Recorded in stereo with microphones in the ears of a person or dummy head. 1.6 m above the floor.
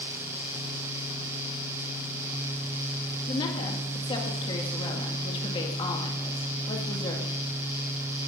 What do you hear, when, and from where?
3.3 s a woman speaking: 30° left (ahead or behind), 2 m